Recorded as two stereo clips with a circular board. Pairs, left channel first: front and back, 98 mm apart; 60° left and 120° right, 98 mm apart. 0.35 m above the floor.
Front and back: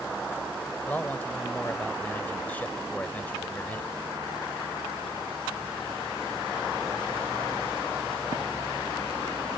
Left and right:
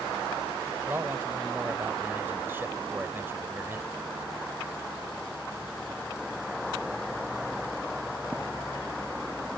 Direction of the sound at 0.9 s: 65° right.